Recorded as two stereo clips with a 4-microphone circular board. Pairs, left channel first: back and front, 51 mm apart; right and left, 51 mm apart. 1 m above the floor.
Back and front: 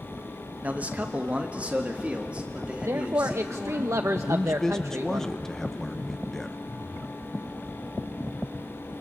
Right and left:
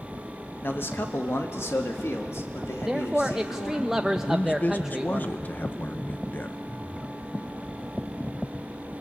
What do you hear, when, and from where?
0.6 s a man speaking: 55° right, 1.4 m; by 3.9 s 70° right, 3.5 m
2.9 s a man speaking: 10° left, 0.5 m
4.3 s a man speaking: 105° right, 0.7 m